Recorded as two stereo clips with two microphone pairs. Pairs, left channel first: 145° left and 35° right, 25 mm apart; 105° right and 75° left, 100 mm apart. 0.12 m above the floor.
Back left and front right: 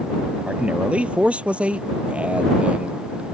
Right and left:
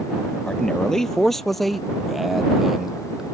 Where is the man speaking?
25° right; by 3.4 s 10° right.